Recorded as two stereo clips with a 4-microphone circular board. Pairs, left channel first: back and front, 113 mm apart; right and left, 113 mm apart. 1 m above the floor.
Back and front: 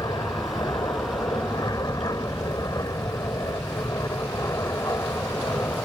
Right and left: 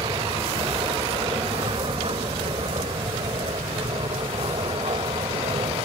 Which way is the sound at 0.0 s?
130° left.